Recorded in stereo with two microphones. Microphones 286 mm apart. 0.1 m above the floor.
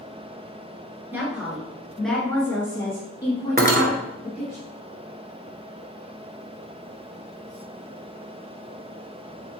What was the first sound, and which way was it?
A woman speaking, 5° right (ahead or behind).